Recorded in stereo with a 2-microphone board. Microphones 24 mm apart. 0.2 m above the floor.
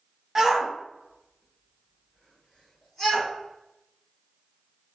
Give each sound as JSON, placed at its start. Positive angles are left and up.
{"t": 0.3, "sound": "a shout", "side_deg": -15, "distance_m": 1.1}